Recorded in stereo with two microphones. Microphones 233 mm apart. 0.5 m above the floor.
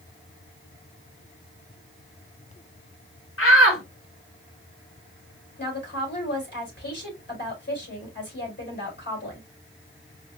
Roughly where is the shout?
Left.